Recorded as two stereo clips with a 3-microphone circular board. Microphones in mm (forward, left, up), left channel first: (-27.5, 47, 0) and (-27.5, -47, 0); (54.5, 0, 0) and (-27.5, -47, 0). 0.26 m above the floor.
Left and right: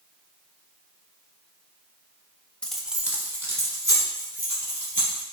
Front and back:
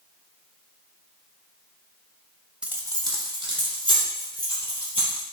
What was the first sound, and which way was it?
Keys jangling, 145° left.